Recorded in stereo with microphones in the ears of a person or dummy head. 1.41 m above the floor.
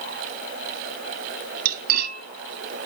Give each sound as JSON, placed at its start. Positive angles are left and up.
{"t": 1.6, "sound": "cutlery clinking", "side_deg": -50, "distance_m": 2.0}